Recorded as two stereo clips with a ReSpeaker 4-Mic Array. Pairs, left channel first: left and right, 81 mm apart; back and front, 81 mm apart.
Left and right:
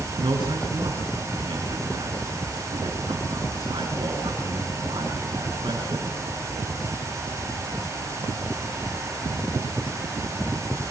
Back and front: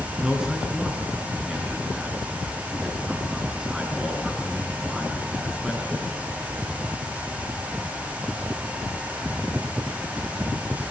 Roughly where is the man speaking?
Right.